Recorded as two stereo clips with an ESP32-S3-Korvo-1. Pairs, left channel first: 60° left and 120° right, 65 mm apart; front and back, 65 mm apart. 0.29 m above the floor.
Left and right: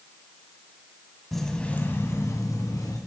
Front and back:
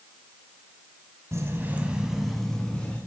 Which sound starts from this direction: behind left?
Keys jangling, at 1.3 s.